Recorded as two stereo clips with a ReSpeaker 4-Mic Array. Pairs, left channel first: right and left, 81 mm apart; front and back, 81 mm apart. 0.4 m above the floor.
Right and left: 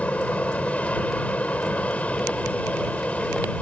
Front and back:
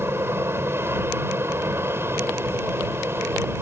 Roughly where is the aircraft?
Behind right.